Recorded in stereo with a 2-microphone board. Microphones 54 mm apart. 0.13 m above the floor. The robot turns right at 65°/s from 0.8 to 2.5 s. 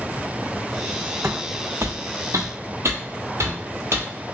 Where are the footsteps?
55° right (ahead or behind), 0.5 m; by 4.1 s 60° right (ahead or behind), 1.7 m.